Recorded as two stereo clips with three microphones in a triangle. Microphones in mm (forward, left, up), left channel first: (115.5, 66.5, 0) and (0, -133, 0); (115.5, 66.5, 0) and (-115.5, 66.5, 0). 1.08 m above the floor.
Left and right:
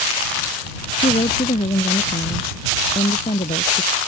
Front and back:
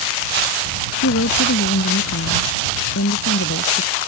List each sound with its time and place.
1.0 s a woman speaking: 5° right; by 4.0 s straight ahead